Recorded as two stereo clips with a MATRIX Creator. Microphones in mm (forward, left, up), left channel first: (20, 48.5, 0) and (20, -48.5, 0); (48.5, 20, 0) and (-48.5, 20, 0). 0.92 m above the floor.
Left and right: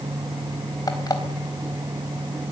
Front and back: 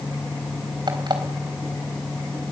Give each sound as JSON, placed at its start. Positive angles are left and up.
{"t": 0.9, "sound": "an alarm clock", "azimuth_deg": 140, "distance_m": 3.5}